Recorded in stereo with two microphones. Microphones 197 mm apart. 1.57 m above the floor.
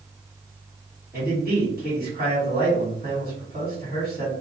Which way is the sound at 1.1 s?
45° right (ahead or behind).